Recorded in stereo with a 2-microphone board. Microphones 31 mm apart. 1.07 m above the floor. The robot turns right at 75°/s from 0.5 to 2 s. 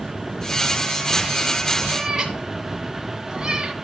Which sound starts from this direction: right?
A cat meowing, at 1.9 s.